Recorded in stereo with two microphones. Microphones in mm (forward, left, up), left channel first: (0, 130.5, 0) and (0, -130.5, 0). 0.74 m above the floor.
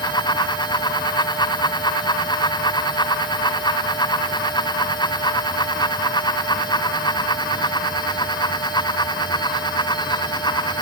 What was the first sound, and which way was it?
Only background noise.